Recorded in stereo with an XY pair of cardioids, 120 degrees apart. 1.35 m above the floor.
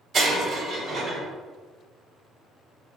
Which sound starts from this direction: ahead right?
Breaking glass, at 0.1 s.